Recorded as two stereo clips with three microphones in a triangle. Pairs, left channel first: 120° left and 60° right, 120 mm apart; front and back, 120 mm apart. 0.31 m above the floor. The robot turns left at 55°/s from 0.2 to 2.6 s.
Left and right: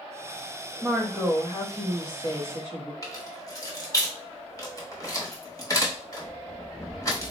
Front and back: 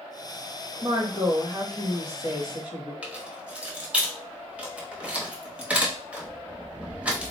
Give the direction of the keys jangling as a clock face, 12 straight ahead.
8 o'clock.